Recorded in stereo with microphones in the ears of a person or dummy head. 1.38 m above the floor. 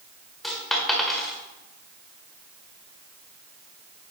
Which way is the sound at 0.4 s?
5° left (ahead or behind).